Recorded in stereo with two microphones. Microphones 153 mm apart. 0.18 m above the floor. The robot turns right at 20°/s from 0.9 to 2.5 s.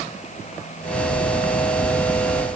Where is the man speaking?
No man speaking in this recording.